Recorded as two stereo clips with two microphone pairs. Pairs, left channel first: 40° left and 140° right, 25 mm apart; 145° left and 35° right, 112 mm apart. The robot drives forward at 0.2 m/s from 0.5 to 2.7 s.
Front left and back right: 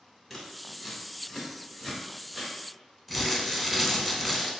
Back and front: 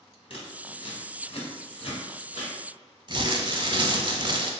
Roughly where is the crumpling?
Ahead right.